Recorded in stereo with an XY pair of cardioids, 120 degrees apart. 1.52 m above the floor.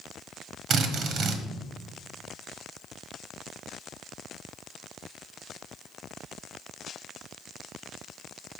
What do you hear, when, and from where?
0.7 s a drill: 60° right, 1.2 m